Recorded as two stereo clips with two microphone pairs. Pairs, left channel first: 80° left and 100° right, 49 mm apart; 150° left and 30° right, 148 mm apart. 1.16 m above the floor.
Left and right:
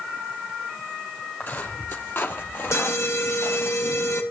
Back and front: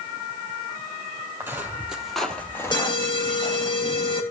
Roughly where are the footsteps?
Ahead left.